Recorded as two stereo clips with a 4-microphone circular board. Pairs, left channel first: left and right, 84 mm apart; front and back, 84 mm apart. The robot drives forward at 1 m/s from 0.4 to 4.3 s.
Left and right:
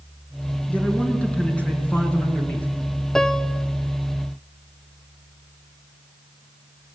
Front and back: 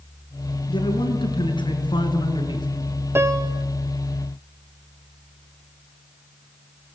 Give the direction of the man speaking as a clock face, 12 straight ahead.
12 o'clock.